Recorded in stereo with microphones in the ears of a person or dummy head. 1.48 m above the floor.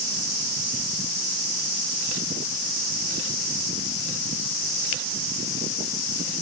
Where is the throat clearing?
I don't hear throat clearing.